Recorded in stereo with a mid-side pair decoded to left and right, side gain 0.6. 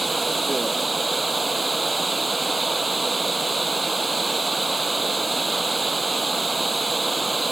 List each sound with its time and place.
0.0 s running water: 10° right